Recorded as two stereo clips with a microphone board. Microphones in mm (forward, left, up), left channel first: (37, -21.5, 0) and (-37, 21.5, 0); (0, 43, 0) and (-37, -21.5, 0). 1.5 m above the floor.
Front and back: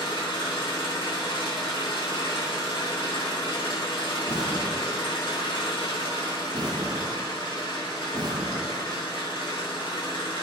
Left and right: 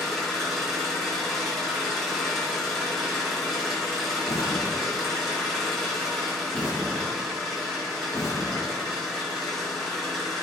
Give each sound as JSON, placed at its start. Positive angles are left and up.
{"t": 0.0, "sound": "an engine running", "azimuth_deg": -30, "distance_m": 1.4}
{"t": 4.3, "sound": "an explosion", "azimuth_deg": 110, "distance_m": 0.9}